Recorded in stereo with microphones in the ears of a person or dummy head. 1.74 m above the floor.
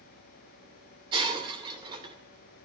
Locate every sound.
1.1 s breaking glass: 30° right (ahead or behind), 2.5 m